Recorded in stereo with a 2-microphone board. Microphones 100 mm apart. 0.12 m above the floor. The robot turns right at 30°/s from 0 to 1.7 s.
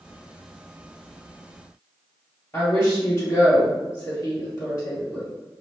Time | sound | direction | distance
2.5 | a woman speaking | 25° left (ahead or behind) | 1.8 m